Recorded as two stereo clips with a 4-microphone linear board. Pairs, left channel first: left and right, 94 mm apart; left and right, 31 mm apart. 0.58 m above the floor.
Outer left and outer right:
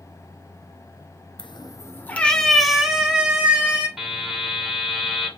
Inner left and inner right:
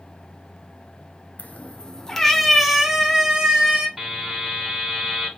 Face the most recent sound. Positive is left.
turn(degrees=-5)  # may be behind; listen again after turning